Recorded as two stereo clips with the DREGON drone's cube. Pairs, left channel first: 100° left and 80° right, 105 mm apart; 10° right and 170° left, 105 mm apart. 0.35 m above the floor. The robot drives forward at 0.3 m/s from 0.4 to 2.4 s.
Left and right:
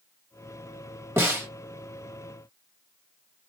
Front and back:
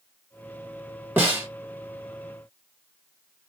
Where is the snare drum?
130° right, 1.4 m; by 1.5 s 135° right, 1.4 m.